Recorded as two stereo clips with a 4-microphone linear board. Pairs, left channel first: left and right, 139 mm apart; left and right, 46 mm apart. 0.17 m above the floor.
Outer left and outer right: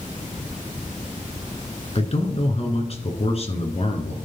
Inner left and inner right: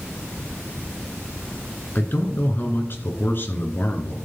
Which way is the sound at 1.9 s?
45° left (ahead or behind).